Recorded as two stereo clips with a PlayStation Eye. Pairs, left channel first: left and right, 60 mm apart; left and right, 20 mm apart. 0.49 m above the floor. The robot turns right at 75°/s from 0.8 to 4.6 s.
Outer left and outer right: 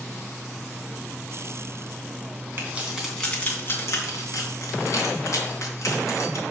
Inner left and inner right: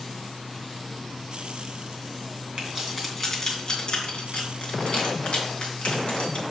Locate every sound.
2.6 s keys jangling: 40° right (ahead or behind), 3 m; by 6.4 s 70° left (ahead or behind), 3 m